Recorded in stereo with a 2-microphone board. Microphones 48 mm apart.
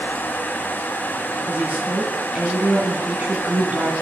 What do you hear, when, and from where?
1.5 s a woman speaking: 30° right (ahead or behind), 1.5 m